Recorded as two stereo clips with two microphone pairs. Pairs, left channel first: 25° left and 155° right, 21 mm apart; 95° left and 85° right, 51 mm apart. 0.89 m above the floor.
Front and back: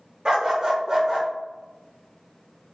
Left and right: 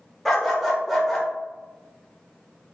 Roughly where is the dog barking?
Behind.